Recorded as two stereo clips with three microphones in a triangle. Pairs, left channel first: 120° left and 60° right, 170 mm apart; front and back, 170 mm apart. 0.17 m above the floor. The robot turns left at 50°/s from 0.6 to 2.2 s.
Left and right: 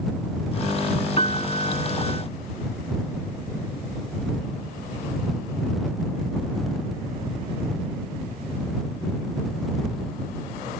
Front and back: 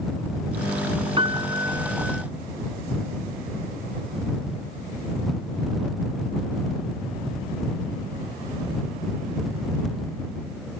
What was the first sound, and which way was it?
A piano, 140° left.